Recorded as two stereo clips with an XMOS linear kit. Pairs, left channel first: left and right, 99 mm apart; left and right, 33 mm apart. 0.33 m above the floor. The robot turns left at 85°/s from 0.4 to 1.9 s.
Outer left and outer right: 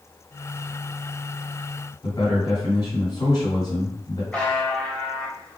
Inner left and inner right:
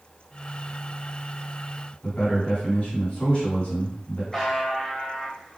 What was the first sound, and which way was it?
A man speaking, 45° left (ahead or behind).